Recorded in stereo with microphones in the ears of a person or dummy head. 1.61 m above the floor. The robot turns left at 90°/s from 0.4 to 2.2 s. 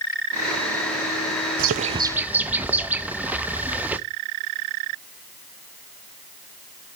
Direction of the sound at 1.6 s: 120° right.